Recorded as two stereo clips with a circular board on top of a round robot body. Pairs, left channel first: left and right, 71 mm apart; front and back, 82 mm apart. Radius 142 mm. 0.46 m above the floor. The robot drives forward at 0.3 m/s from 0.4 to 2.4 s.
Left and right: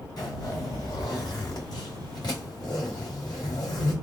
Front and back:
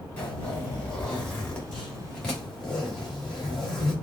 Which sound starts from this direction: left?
A zipper, at 0.2 s.